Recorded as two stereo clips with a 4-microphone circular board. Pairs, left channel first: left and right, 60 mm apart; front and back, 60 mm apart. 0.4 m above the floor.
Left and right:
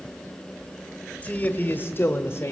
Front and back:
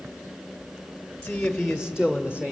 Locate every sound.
1.2 s a man speaking: 55° left, 1.0 m; by 2.5 s 120° left, 1.5 m